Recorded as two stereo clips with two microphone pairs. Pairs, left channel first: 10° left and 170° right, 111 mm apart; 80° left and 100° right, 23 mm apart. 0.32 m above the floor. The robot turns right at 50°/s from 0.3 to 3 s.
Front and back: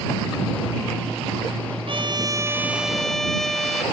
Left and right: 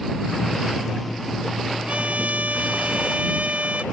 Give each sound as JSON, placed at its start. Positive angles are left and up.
{"t": 1.9, "sound": "a trumpet", "azimuth_deg": -135}